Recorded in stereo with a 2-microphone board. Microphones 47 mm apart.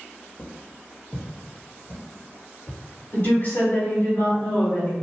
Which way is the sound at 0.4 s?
Centre (ahead or behind).